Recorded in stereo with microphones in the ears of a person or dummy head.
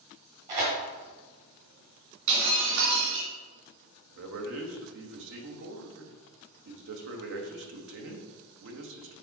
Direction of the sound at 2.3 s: 60° right (ahead or behind).